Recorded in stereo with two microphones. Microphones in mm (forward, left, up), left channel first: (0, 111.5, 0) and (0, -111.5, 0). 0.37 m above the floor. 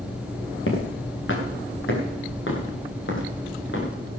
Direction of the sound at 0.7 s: 65° left (ahead or behind).